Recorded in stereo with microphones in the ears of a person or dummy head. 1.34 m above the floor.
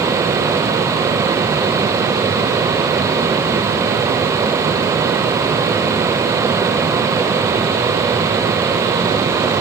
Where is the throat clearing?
I don't hear throat clearing.